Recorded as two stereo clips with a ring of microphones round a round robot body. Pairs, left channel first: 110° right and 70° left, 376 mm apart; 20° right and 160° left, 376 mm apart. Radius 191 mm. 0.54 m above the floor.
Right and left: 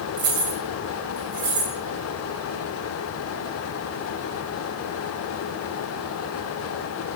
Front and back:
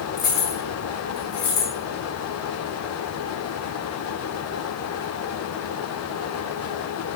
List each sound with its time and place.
0.2 s keys jangling: 45° left, 2.5 m; by 1.7 s 20° left, 4 m